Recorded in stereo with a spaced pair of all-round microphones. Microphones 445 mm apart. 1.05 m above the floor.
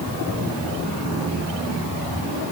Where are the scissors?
I don't hear scissors.